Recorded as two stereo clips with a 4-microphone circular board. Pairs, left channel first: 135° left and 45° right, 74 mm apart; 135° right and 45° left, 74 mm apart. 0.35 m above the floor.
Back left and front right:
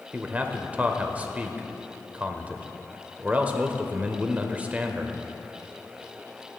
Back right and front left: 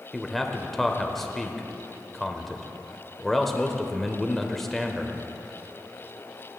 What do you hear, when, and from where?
0.1 s a man speaking: 55° right, 0.8 m